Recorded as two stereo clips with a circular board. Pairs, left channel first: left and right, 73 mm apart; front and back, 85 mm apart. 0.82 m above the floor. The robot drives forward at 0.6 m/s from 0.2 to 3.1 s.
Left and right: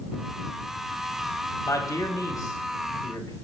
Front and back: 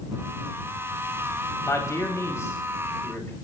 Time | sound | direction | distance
1.6 | a man speaking | 50° left | 5 m